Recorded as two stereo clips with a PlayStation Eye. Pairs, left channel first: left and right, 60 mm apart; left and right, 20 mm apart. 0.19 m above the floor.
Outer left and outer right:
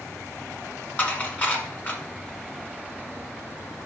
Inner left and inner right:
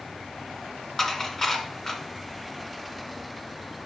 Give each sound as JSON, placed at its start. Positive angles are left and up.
{"t": 1.0, "sound": "dishes clattering", "side_deg": 35, "distance_m": 1.4}